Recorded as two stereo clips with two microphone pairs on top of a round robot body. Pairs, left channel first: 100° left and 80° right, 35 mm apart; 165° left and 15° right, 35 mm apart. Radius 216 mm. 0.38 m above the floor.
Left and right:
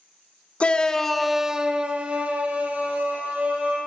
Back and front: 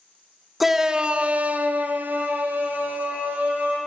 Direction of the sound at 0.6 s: 75° left.